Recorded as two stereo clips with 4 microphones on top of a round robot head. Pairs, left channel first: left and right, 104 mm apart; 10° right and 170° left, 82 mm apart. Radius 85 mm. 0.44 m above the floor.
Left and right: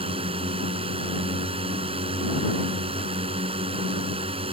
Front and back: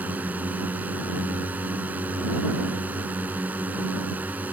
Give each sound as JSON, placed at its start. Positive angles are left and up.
{"t": 0.0, "sound": "a drone", "azimuth_deg": -120}